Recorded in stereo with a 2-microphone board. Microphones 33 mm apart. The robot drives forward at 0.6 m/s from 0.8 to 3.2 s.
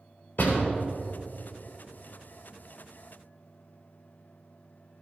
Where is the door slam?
60° left (ahead or behind), 4 m.